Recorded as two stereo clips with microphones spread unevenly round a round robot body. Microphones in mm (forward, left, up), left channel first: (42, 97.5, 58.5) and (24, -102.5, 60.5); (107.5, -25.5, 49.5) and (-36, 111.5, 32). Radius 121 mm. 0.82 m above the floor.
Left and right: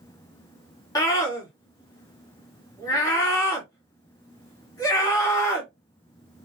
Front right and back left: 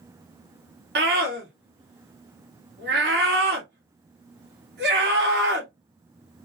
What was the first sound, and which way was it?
A scream, 155° left.